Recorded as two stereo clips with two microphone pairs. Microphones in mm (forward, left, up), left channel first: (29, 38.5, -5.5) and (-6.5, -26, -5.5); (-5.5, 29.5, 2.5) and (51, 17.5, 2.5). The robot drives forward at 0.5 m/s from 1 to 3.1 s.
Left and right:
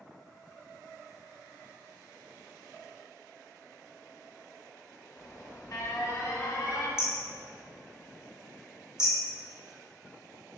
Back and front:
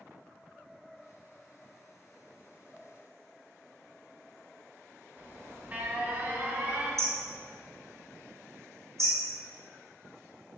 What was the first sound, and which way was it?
An alarm, 35° left.